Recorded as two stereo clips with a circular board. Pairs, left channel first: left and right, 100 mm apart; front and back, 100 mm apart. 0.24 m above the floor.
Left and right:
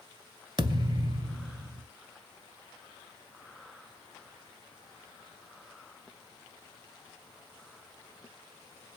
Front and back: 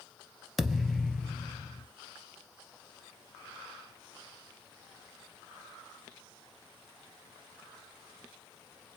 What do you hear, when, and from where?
0.6 s a thud: 90° right, 0.5 m